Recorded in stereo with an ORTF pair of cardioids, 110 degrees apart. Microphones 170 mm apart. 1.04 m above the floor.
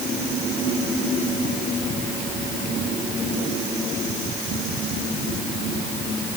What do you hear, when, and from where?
Only background noise.